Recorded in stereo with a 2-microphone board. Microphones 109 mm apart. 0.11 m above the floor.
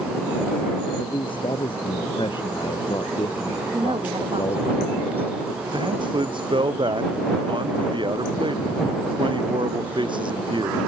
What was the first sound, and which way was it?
A man speaking, 55° left (ahead or behind).